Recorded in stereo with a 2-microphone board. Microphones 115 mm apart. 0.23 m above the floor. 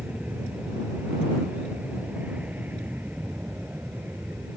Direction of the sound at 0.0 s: 10° right (ahead or behind).